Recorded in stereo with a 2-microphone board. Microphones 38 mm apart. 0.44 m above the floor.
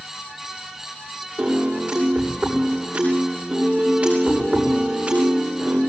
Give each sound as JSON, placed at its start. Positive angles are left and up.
{"t": 1.4, "sound": "a piano", "side_deg": -45, "distance_m": 8.5}